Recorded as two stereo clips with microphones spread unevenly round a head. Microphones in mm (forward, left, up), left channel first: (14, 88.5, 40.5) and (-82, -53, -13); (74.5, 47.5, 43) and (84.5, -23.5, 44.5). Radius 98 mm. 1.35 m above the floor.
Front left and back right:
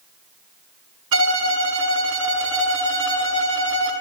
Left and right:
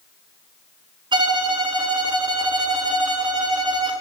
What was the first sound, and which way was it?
A violin, 95° right.